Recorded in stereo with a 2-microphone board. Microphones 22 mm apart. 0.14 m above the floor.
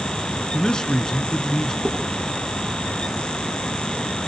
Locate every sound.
0.5 s a man speaking: 35° left (ahead or behind), 2 m
1.9 s dishes clattering: 70° right (ahead or behind), 7 m